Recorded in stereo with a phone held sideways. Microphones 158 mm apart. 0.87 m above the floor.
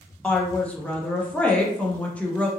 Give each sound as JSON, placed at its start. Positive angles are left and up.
{"t": 0.2, "sound": "a woman speaking", "side_deg": 10, "distance_m": 0.7}